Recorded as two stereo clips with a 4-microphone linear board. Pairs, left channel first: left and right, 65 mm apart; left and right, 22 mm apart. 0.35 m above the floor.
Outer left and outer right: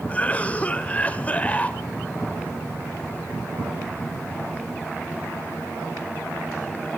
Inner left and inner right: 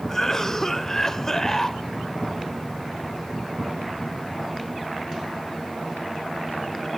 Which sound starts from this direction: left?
A cough, at 0.1 s.